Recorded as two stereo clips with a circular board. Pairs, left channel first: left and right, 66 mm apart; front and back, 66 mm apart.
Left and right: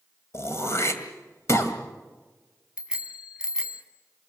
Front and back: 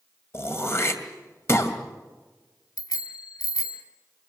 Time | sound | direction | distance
0.3 | throat clearing | 50° left | 2.5 m
2.8 | a bicycle bell | 10° right | 3 m